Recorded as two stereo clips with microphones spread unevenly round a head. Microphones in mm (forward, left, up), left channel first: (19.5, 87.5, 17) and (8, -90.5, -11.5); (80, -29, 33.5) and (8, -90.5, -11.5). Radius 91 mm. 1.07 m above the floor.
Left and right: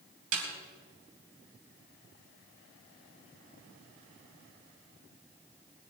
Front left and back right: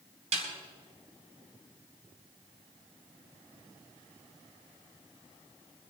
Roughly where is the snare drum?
Behind right.